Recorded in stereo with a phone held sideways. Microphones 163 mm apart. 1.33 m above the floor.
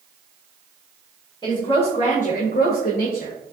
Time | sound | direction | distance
1.4 | a woman speaking | 25° left (ahead or behind) | 1.3 m